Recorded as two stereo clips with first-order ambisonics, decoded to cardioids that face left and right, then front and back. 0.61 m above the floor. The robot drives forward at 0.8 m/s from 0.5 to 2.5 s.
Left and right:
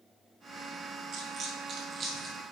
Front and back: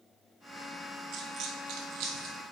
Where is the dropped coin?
135° right, 1.1 m; by 2.4 s 160° right, 1.8 m.